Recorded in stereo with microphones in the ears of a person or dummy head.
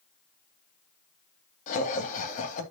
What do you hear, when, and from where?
1.7 s laughter: 40° left (ahead or behind), 2.5 m